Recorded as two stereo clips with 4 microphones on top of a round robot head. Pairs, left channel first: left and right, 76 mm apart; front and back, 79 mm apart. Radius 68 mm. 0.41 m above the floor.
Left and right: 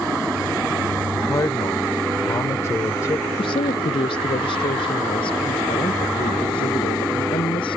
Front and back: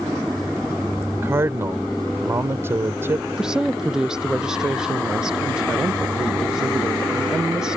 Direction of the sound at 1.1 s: 135° left.